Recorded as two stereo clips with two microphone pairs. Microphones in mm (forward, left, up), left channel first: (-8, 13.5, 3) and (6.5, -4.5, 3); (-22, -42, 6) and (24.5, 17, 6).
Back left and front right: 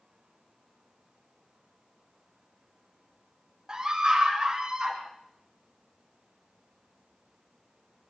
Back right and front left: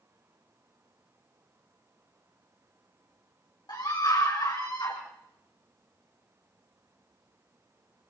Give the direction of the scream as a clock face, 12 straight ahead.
4 o'clock.